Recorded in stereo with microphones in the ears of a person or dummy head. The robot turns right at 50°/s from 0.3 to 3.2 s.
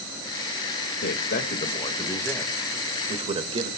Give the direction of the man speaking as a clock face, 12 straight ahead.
8 o'clock.